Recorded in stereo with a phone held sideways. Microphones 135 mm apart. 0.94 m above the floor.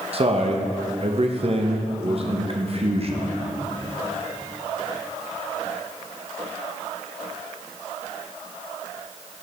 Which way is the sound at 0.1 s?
45° right (ahead or behind).